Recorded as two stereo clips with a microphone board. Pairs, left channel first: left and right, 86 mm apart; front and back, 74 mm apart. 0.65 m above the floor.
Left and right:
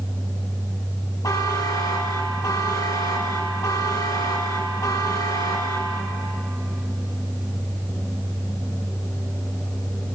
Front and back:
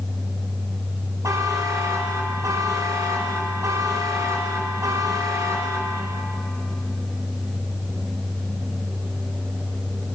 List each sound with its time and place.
1.2 s a buzzer: 135° left, 0.7 m